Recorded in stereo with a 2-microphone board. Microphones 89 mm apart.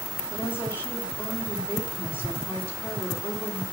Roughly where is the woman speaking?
Left.